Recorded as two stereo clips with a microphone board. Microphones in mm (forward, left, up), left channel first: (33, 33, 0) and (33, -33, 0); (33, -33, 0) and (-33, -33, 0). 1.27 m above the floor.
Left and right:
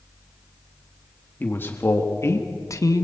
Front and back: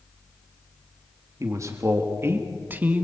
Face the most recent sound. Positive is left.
turn(degrees=115)